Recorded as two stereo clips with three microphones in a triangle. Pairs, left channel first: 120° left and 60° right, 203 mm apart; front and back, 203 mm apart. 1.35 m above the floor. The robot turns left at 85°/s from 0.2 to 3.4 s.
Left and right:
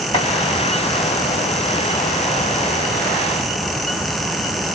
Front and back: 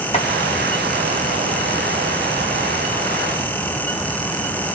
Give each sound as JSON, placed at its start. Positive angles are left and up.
{"t": 0.1, "sound": "chopping", "azimuth_deg": 60, "distance_m": 1.9}